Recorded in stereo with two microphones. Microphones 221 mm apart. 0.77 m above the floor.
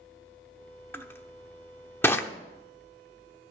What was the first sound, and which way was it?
Crushing, 10° left (ahead or behind).